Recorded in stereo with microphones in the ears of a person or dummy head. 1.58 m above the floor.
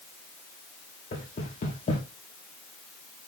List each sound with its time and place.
1.1 s knocking: 40° left (ahead or behind), 2.5 m